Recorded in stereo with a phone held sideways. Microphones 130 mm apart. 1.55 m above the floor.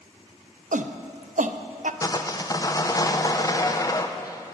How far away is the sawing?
About 0.5 m.